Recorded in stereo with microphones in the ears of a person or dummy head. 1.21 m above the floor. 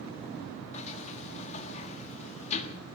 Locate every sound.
0.7 s a sliding door: 45° left (ahead or behind), 1.4 m